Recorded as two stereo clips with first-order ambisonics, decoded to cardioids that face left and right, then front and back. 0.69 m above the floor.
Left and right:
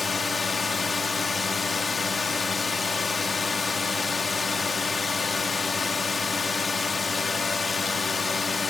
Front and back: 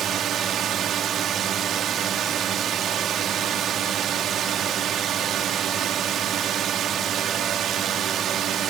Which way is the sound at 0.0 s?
160° left.